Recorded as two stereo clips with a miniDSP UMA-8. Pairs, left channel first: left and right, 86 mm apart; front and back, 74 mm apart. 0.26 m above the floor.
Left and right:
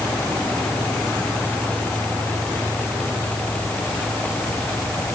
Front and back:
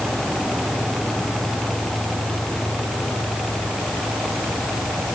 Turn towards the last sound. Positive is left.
No sound to turn to.